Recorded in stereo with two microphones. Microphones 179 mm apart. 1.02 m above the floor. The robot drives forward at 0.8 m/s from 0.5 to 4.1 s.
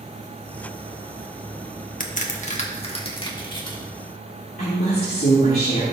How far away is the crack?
About 1.3 m.